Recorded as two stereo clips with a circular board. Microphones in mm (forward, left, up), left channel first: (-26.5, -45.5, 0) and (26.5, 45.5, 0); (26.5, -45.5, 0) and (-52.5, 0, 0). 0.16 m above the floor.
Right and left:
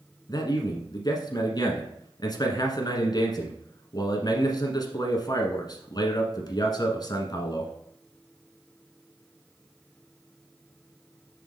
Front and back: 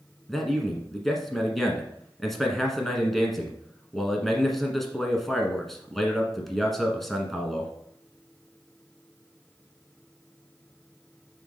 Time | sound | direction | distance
0.3 | a man speaking | 115° right | 1.3 m